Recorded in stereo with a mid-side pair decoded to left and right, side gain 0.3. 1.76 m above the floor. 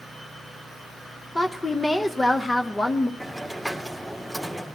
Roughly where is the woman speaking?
Ahead left.